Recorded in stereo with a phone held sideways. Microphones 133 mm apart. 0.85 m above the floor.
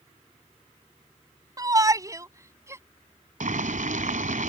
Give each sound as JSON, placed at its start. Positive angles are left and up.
{"t": 1.6, "sound": "a shout", "side_deg": -25}
{"t": 3.4, "sound": "boiling", "side_deg": -75}